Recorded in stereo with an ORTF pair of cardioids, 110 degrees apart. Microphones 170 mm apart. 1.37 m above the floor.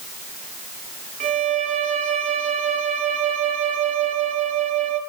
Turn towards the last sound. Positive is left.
turn(degrees=-45)